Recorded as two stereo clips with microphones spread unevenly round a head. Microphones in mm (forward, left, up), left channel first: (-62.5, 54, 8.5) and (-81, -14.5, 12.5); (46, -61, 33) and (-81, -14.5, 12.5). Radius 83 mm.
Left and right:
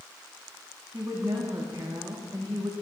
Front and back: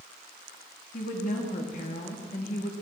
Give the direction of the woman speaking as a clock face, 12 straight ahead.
1 o'clock.